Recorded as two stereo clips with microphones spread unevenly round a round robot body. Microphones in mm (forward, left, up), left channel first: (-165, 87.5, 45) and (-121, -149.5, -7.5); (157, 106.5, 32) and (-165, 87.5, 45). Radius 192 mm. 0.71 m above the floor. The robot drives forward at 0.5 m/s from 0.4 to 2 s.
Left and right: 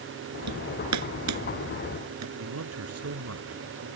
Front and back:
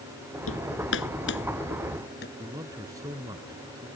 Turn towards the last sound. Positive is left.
turn(degrees=-95)